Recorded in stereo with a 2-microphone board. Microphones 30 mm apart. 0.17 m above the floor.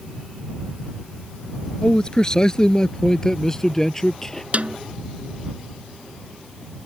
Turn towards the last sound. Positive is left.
turn(degrees=-50)  # may be behind; listen again after turning